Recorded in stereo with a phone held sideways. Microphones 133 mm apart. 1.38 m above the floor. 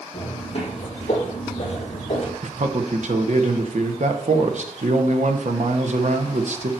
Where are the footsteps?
45° left (ahead or behind), 3.5 m; by 2.3 s 55° left (ahead or behind), 2 m.